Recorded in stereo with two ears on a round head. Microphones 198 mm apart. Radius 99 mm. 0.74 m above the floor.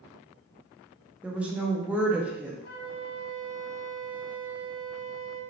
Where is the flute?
50° left (ahead or behind), 0.9 m.